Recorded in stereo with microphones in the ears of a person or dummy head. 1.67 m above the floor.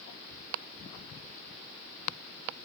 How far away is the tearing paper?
No tearing paper in this recording.